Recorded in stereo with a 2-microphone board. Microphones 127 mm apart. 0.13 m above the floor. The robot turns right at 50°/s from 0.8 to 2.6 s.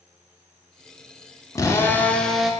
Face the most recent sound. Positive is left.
turn(degrees=-175)